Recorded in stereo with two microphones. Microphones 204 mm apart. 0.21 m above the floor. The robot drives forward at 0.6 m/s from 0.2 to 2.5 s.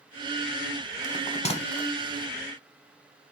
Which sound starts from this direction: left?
A bell, at 1.0 s.